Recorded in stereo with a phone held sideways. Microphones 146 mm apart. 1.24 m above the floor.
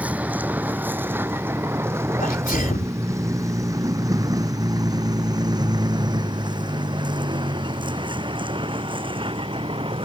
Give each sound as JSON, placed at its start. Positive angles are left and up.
{"t": 0.0, "sound": "a vehicle", "side_deg": -10}
{"t": 2.2, "sound": "a sneeze", "side_deg": 70}